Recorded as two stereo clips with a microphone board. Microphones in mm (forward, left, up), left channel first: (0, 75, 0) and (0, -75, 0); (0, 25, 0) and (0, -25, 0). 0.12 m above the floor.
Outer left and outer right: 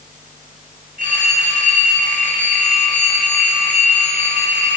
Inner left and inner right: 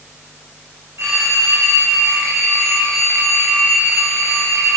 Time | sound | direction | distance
1.0 | a phone ringing | 60° right (ahead or behind) | 6 m